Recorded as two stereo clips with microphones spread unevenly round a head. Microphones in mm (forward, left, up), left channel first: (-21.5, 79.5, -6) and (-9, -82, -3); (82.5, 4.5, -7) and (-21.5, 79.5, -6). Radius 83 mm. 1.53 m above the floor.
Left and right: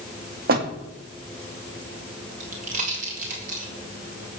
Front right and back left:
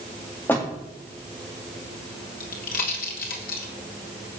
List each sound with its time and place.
0.5 s a door slam: 115° right, 2 m
2.4 s a pop: 40° right, 3.5 m